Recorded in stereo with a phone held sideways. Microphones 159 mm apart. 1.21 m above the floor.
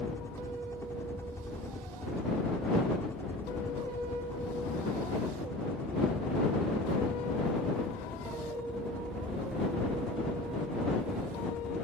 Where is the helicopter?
15° left (ahead or behind); by 11.8 s 5° left (ahead or behind).